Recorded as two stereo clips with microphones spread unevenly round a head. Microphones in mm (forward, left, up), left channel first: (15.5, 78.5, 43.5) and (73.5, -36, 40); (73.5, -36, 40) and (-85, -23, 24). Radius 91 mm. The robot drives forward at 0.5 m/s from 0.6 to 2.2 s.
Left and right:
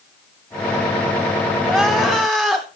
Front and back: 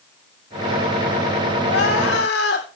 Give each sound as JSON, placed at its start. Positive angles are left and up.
{"t": 1.6, "sound": "crying", "azimuth_deg": 25, "distance_m": 3.0}